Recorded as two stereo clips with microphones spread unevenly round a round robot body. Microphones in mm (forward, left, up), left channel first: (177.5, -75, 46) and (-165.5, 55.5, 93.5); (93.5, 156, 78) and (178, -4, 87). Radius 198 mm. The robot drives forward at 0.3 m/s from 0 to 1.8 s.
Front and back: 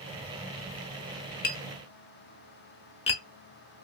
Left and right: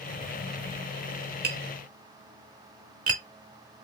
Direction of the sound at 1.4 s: 75° right.